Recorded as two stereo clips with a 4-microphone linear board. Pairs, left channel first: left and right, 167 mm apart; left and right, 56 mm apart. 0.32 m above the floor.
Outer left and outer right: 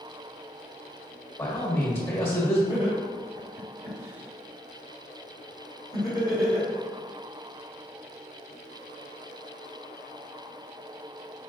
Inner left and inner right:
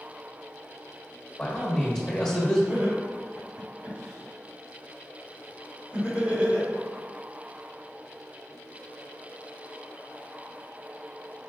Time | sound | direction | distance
1.4 | a man speaking | 15° left (ahead or behind) | 1.0 m
2.7 | laughter | 20° right (ahead or behind) | 1.8 m